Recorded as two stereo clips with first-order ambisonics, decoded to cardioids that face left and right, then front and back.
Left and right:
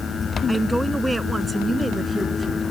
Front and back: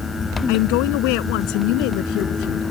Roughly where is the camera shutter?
No camera shutter in this recording.